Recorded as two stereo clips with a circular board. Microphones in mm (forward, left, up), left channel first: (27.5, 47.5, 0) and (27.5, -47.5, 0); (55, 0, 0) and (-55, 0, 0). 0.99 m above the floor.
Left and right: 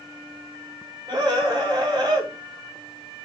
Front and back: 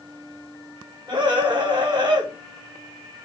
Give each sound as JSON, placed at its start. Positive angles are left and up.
{"t": 1.1, "sound": "a scream", "azimuth_deg": -135, "distance_m": 4.0}